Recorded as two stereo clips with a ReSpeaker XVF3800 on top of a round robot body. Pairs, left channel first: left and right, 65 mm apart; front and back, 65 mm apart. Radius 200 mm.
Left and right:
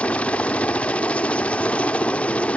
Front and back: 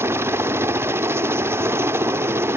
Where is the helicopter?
155° left.